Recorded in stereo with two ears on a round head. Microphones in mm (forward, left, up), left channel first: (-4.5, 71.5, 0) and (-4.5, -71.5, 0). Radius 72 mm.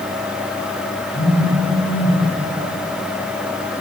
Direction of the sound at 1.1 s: 10° left (ahead or behind).